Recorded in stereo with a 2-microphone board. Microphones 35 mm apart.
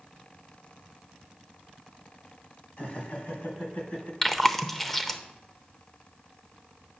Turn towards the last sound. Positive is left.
turn(degrees=10)  # may be behind; listen again after turning